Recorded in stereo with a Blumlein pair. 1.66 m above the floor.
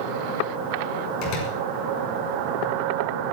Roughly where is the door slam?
Ahead left.